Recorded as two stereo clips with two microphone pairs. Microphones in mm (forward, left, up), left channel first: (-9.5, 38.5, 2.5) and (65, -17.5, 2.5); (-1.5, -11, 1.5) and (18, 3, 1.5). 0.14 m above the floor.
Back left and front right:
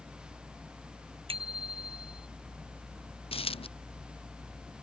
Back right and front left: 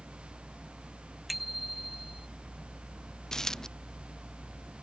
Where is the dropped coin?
150° left.